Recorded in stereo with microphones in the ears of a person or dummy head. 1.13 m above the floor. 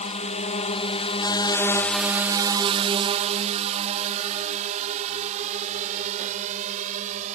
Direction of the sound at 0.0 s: 35° left (ahead or behind).